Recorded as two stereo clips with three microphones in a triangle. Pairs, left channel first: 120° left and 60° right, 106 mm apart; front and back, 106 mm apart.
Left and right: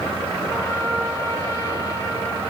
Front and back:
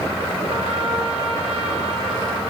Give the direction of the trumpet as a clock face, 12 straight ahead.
6 o'clock.